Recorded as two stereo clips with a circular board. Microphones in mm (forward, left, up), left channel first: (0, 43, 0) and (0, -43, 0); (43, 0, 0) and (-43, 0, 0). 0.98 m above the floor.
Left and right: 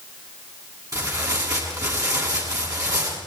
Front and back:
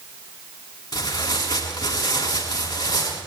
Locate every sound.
0.9 s tearing paper: 45° right, 8 m